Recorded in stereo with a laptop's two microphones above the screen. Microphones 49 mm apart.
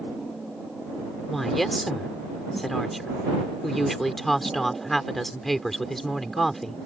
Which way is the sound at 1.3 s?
5° left (ahead or behind).